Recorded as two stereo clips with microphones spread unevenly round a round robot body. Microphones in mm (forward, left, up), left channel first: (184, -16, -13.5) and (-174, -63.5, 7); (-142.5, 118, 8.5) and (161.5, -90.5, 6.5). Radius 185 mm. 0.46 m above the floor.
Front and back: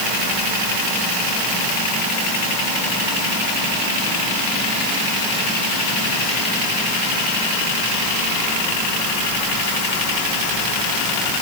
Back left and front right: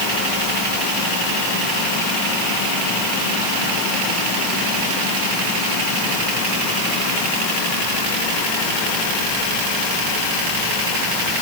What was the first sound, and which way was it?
Only background noise.